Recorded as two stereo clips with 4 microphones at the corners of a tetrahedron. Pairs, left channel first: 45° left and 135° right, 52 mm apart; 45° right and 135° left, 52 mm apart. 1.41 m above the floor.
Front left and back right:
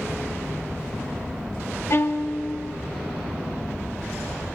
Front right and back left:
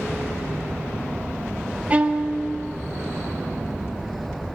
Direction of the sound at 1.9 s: 70° left.